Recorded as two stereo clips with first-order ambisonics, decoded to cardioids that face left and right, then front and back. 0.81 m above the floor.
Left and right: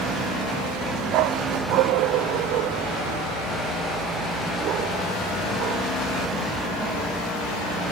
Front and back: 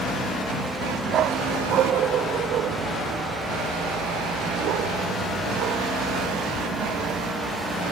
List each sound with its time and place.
1.1 s a dog barking: 120° right; by 5.8 s 140° right